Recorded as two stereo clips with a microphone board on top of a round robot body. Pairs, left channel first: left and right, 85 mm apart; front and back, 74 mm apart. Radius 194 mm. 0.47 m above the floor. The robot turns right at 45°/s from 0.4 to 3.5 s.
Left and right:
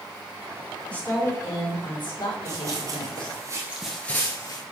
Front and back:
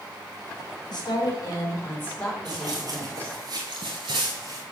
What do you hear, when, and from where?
0.9 s a woman speaking: 10° left, 3.5 m; by 3.4 s 125° left, 3.5 m
2.5 s running footsteps: 150° right, 1.3 m; by 4.6 s 140° left, 1.0 m